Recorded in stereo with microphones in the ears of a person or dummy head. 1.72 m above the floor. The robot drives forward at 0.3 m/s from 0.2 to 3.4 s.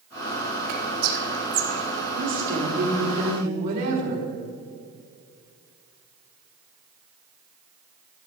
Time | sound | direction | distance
0.7 | whispering | 80° right | 3 m
2.1 | a woman speaking | 45° right (ahead or behind) | 3 m